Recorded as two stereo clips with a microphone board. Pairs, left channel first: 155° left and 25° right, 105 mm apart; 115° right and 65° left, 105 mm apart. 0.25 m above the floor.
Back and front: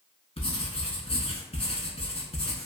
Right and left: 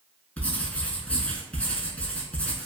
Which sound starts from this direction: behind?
Writing, at 0.4 s.